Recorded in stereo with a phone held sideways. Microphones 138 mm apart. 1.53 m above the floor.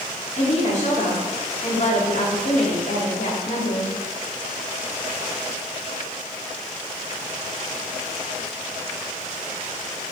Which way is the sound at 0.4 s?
55° left (ahead or behind).